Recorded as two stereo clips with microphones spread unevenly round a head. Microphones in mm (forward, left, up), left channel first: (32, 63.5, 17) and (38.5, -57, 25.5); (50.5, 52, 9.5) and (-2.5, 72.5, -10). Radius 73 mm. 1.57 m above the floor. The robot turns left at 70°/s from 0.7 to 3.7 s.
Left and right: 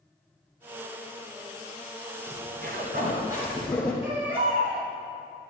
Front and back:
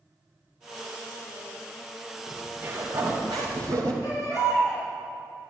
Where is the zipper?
80° right, 2.5 m; by 3.9 s straight behind, 2.5 m.